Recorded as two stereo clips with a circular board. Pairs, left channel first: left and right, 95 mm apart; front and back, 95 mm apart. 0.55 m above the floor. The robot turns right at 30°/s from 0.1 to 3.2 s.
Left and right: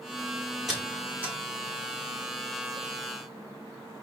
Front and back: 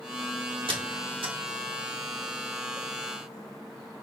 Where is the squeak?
Straight behind, 1.0 m; by 1.4 s 160° right, 1.0 m.